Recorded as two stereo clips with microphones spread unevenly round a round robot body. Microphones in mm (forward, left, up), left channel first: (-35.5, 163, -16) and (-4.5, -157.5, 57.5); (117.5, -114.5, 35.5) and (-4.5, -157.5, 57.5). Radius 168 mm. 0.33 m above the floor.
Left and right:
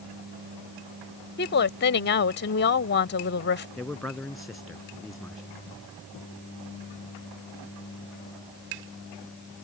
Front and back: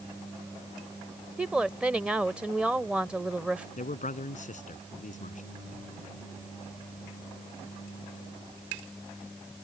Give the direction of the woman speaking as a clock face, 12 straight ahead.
8 o'clock.